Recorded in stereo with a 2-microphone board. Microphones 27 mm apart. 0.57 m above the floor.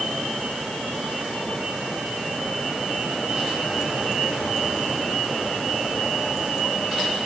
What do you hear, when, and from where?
Only background noise.